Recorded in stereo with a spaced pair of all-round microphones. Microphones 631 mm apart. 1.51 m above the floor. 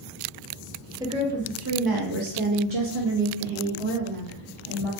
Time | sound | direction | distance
1.0 | a woman speaking | 5° right (ahead or behind) | 1.0 m